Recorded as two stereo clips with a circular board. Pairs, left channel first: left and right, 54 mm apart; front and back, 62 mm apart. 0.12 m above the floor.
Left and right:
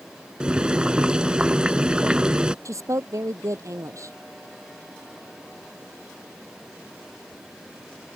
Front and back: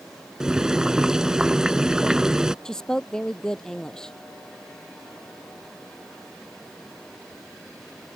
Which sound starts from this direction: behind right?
Boiling, at 0.4 s.